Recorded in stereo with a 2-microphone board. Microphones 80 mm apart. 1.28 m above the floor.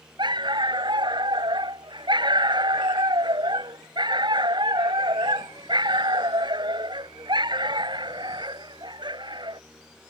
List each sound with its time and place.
0.2 s a dog barking: 70° right (ahead or behind)